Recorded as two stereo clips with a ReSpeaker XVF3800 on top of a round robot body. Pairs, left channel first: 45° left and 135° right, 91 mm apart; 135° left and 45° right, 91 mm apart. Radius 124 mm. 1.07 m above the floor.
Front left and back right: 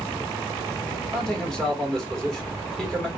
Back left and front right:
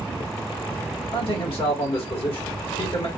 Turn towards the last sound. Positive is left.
turn(degrees=130)